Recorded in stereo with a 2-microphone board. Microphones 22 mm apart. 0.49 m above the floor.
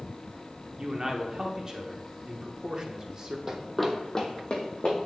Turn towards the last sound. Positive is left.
turn(degrees=50)  # may be behind; listen again after turning